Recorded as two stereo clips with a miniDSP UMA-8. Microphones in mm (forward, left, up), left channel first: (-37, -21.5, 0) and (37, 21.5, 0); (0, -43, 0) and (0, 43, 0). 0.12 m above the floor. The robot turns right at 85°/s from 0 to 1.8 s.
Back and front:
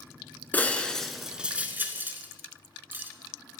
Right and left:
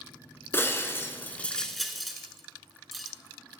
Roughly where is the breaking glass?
Right.